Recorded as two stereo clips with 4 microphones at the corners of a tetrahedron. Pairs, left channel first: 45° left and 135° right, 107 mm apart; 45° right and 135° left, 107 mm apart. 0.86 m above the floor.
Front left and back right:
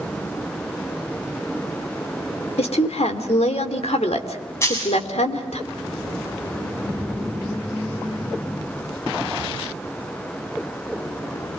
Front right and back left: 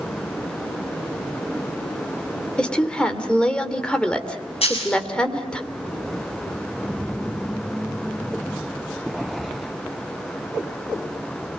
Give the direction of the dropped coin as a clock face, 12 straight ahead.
1 o'clock.